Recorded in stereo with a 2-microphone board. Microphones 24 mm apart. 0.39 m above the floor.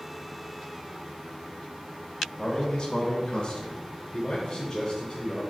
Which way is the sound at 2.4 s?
30° left (ahead or behind).